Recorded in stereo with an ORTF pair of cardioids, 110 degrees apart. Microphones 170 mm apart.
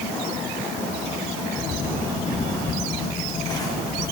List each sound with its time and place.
1.6 s footsteps: 20° left, 6 m